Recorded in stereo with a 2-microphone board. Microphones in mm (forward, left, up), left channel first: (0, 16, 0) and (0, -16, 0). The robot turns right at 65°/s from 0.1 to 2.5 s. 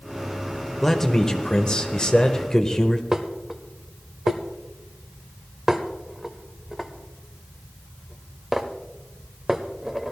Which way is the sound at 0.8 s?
10° left (ahead or behind).